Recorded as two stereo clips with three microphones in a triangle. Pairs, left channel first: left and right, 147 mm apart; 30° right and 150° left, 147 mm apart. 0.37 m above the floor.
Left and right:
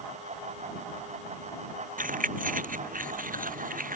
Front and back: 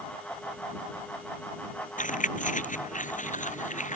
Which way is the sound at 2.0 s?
65° right.